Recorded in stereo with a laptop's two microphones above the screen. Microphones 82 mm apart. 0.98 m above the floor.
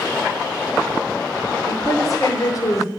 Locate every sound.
1.7 s a woman speaking: 45° left (ahead or behind), 3 m